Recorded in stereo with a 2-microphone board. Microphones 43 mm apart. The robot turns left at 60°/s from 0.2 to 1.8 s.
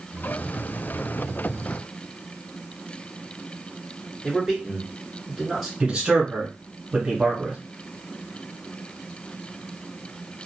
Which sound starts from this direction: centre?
A man speaking, at 4.2 s.